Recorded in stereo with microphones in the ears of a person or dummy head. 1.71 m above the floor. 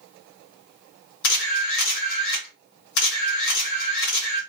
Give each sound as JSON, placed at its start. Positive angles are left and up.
{"t": 1.2, "sound": "a camera shutter", "side_deg": 65, "distance_m": 1.6}